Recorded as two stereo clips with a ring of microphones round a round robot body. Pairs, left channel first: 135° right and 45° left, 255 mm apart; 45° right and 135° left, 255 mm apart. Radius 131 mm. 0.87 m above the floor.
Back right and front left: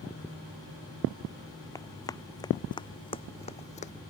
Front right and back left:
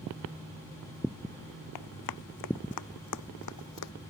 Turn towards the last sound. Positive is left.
turn(degrees=-70)